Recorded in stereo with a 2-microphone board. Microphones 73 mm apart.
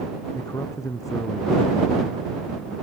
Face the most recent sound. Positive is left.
turn(degrees=50)  # may be behind; listen again after turning